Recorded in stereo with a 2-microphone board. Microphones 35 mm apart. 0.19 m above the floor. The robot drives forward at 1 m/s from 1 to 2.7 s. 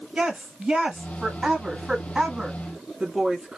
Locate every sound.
0.1 s a woman speaking: 20° right (ahead or behind), 1.8 m